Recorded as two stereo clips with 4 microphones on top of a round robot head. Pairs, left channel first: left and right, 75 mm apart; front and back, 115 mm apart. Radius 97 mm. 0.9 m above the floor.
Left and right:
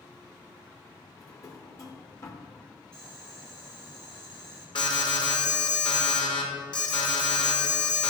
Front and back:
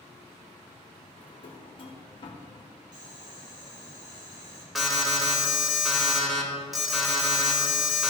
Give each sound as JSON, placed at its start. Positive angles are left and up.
{"t": 1.2, "sound": "a drawer", "azimuth_deg": 45, "distance_m": 1.2}
{"t": 2.9, "sound": "boiling", "azimuth_deg": 175, "distance_m": 2.5}
{"t": 4.8, "sound": "an alarm", "azimuth_deg": 90, "distance_m": 2.0}